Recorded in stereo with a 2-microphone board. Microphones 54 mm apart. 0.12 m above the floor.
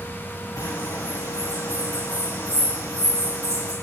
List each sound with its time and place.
0.6 s a bird: 75° left (ahead or behind), 4 m